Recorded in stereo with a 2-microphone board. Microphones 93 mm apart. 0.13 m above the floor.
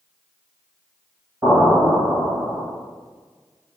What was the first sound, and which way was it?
An explosion, 30° right (ahead or behind).